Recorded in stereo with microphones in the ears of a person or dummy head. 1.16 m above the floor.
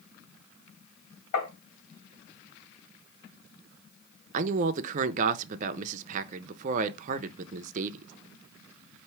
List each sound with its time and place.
1.3 s tapping: 65° left (ahead or behind), 2.5 m
4.3 s a man speaking: 40° right (ahead or behind), 0.5 m